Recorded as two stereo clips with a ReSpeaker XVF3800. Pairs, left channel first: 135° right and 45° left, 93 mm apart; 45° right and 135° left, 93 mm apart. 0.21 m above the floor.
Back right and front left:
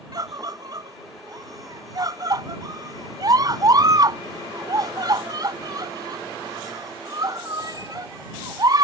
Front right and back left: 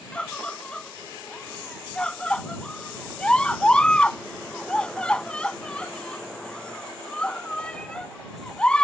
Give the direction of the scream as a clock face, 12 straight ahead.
11 o'clock.